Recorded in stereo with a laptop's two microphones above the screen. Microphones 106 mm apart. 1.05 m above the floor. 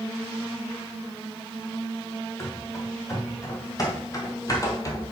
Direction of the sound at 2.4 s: 30° left (ahead or behind).